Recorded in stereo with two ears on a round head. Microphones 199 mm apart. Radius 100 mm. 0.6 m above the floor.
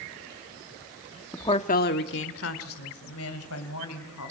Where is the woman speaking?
10° left (ahead or behind), 0.9 m; by 4.3 s 80° left, 4.5 m.